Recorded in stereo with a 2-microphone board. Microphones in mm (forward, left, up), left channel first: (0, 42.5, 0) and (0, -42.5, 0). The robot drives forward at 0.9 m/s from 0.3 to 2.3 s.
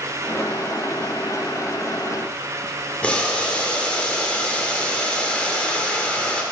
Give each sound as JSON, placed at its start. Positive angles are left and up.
{"t": 3.0, "sound": "boiling", "side_deg": 15, "distance_m": 1.2}